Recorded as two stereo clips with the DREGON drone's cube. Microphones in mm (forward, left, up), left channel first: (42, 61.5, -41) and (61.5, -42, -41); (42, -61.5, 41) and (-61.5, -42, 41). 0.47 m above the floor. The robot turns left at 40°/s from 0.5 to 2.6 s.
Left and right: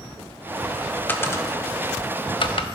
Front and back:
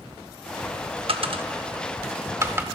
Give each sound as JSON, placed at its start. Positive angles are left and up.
{"t": 1.1, "sound": "a dropped coin", "azimuth_deg": 165, "distance_m": 0.5}